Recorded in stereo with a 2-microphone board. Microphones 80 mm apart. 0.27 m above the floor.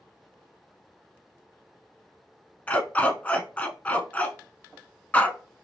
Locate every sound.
2.7 s a dog barking: 20° left (ahead or behind), 0.6 m